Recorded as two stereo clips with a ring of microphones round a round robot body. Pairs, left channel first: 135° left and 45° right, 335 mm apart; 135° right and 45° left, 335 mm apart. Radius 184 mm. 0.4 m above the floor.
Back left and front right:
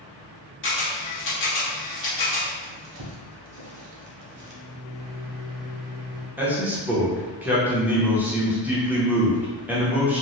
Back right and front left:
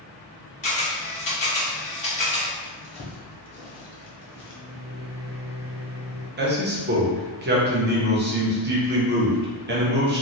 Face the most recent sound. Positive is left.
turn(degrees=35)